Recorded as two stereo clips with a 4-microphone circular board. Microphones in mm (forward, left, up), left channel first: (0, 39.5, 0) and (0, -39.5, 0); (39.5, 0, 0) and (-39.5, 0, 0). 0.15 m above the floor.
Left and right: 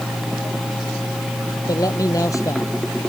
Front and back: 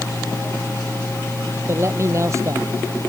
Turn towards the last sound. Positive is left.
turn(degrees=135)